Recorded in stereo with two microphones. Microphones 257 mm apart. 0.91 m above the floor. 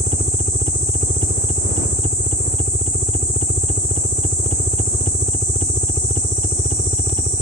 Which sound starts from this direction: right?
A helicopter, at 0.0 s.